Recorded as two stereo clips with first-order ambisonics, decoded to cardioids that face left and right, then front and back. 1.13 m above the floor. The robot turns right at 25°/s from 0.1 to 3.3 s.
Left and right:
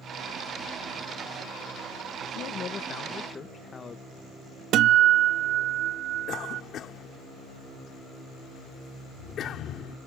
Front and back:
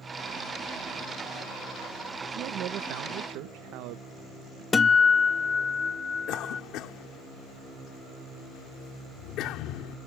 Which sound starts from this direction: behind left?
A man speaking, at 2.4 s.